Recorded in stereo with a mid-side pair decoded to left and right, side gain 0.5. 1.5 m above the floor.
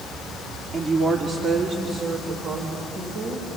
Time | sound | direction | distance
0.7 | a woman speaking | 30° right | 2.5 m